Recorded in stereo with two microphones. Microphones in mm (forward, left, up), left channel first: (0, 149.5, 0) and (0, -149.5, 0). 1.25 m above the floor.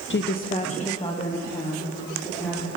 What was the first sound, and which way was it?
A woman speaking, 40° left (ahead or behind).